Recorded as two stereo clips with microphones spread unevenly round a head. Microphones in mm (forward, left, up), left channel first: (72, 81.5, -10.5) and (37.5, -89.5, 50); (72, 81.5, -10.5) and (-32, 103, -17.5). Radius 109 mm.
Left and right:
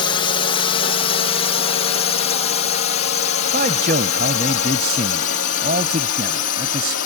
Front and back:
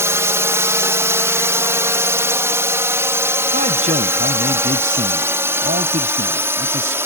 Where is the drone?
110° left; by 7.1 s 100° left.